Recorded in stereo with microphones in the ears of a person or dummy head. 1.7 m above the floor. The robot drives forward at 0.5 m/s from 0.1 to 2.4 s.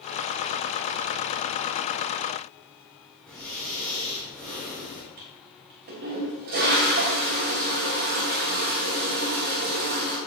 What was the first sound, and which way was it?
Breathing, 10° left (ahead or behind).